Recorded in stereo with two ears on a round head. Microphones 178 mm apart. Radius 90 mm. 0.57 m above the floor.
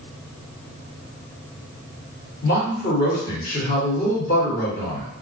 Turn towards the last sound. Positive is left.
turn(degrees=45)  # may be behind; listen again after turning